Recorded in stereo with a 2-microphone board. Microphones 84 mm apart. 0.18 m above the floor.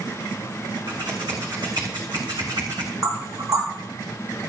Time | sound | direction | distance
0.9 | scissors | 65° right (ahead or behind) | 3 m
3.0 | knocking | 50° right (ahead or behind) | 4.5 m